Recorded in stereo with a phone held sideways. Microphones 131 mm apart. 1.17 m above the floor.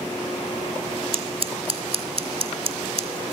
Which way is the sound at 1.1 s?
50° right (ahead or behind).